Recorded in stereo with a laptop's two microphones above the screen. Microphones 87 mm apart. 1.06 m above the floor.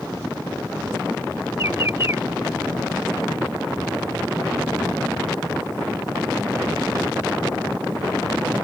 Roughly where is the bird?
Right.